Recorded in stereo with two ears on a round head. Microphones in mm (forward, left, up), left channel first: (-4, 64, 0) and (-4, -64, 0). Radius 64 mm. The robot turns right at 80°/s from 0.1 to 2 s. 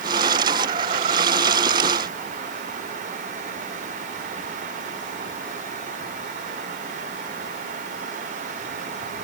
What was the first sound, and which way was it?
Only background noise.